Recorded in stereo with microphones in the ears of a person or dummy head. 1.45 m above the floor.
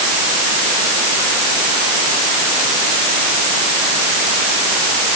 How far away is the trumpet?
No trumpet in this recording.